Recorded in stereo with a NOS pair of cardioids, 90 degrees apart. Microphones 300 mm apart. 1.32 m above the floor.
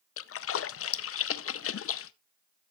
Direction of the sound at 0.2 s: 50° left.